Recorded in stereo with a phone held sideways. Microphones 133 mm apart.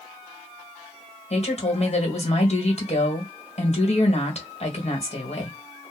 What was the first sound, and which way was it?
A woman speaking, 50° left (ahead or behind).